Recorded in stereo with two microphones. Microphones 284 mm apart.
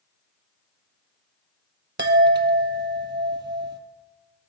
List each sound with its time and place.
2.0 s a chime: 40° right (ahead or behind), 0.6 m